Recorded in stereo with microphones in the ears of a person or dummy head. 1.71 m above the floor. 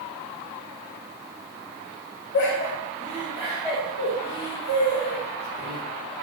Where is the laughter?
60° left (ahead or behind), 0.9 m; by 5.8 s 30° right (ahead or behind), 2.5 m.